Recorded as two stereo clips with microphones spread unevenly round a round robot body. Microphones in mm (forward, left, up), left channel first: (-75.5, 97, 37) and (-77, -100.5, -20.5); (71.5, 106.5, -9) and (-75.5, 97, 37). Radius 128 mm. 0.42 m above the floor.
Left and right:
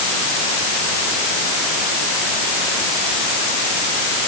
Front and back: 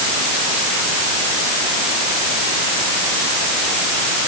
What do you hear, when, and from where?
Only background noise.